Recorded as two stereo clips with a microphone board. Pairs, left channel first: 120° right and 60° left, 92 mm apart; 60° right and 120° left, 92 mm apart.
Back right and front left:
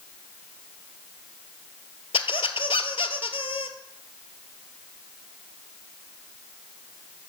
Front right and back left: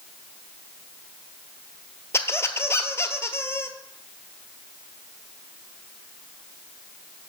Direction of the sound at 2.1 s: 120° right.